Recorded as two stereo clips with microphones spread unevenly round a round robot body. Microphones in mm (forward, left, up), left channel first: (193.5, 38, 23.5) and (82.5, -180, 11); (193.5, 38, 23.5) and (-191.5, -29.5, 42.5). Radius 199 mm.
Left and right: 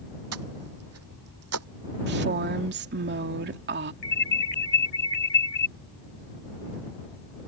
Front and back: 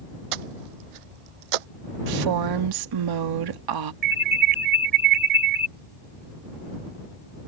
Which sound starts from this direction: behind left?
An alarm, at 4.0 s.